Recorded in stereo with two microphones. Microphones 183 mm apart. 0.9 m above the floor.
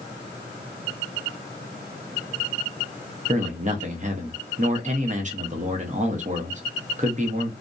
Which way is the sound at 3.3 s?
40° right (ahead or behind).